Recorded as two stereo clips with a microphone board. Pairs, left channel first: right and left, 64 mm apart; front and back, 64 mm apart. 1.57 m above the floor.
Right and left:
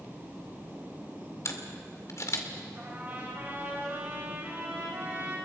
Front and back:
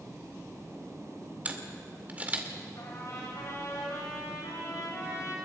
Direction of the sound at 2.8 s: 35° left.